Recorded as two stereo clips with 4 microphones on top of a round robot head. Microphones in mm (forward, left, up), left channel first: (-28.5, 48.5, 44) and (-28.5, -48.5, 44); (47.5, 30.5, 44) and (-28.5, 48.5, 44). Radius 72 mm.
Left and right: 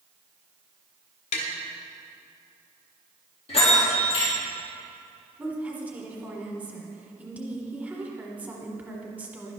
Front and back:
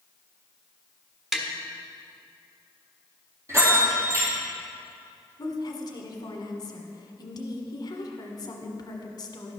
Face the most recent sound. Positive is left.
turn(degrees=-15)